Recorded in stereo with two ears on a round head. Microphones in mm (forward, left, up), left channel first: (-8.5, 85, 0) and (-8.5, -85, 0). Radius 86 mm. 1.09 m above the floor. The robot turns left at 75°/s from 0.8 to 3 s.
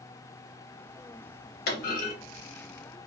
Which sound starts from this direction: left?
A clunk, at 1.7 s.